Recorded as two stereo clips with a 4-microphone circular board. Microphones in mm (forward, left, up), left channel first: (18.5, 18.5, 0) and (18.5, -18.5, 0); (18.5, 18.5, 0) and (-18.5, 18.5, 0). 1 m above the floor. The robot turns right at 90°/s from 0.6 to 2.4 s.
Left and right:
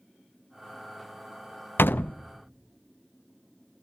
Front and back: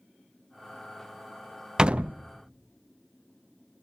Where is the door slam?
110° left, 0.5 m; by 2.2 s 145° left, 0.5 m.